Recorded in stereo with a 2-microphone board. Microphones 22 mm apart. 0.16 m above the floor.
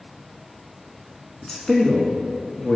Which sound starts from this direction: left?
A man speaking, at 1.4 s.